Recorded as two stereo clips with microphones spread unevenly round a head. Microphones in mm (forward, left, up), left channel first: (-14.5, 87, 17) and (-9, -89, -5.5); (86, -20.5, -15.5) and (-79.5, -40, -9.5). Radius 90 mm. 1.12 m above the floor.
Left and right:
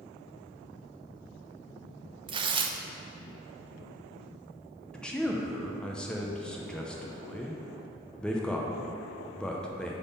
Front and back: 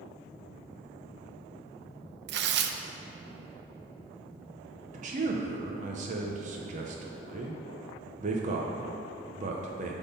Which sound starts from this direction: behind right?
Tearing paper, at 2.3 s.